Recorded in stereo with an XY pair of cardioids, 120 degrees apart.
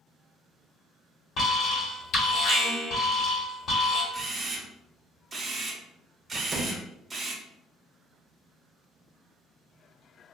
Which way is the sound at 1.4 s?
55° left.